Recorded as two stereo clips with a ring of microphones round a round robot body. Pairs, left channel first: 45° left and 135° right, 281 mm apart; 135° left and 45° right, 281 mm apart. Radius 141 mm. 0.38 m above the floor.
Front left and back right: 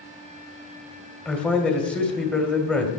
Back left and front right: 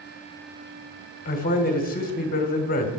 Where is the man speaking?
130° left, 1.6 m.